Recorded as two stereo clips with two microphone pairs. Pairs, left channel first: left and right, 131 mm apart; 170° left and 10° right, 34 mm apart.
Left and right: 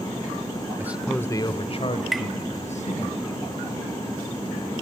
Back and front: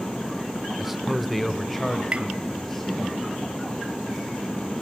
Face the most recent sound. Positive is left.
turn(degrees=0)